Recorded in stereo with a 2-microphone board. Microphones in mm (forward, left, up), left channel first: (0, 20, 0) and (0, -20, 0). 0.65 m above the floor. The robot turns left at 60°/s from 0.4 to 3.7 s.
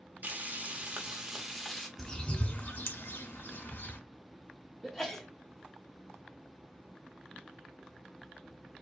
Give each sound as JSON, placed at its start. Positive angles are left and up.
{"t": 0.2, "sound": "frying", "azimuth_deg": -105, "distance_m": 0.9}
{"t": 2.0, "sound": "a bird", "side_deg": 15, "distance_m": 0.8}
{"t": 4.8, "sound": "a sneeze", "side_deg": 5, "distance_m": 1.0}